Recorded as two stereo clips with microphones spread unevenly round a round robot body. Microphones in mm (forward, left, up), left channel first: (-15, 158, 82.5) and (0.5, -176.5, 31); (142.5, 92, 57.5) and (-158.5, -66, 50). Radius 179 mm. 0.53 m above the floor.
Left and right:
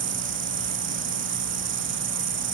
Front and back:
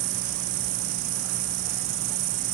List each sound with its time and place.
0.0 s an insect: 145° right